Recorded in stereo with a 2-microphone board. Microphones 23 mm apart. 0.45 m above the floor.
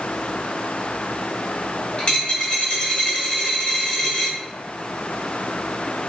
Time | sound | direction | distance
2.0 | a dropped coin | 55° left (ahead or behind) | 1.0 m